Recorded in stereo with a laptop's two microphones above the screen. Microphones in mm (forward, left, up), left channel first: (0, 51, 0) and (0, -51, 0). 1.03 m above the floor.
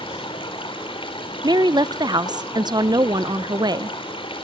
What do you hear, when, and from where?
0.0 s running water: 60° left (ahead or behind), 3.5 m
1.4 s a woman speaking: 40° right (ahead or behind), 0.5 m